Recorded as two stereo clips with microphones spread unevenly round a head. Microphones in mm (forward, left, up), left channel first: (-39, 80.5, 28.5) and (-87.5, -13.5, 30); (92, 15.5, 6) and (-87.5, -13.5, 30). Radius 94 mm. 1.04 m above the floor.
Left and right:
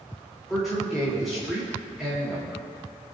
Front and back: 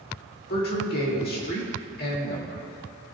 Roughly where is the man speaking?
Ahead right.